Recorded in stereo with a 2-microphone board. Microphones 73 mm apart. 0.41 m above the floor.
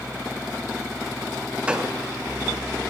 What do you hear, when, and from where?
1.7 s a gunshot: 15° right (ahead or behind), 1.8 m